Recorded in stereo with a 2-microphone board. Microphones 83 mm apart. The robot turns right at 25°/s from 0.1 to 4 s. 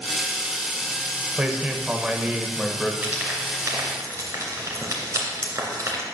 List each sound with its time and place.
1.4 s a man speaking: 15° right (ahead or behind), 0.8 m; by 2.9 s 5° right (ahead or behind), 0.8 m
3.0 s frying: 15° right (ahead or behind), 2.5 m; by 6.0 s 40° right (ahead or behind), 2.5 m